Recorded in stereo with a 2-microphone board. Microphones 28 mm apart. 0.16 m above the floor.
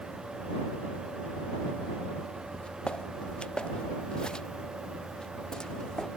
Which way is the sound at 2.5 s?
40° left (ahead or behind).